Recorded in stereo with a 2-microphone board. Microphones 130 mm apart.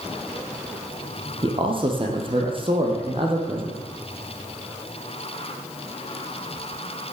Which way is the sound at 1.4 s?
40° right (ahead or behind).